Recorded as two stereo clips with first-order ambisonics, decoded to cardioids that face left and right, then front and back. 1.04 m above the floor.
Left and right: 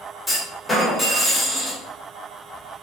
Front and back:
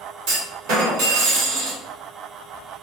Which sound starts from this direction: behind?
A clunk, at 0.3 s.